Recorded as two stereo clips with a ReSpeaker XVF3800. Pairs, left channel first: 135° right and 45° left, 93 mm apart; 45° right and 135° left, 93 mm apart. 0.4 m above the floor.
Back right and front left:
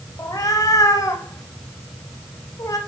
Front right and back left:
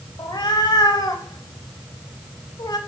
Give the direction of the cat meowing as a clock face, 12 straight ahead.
3 o'clock.